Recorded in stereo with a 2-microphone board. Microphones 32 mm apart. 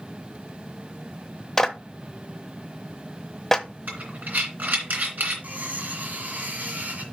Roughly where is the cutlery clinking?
Right.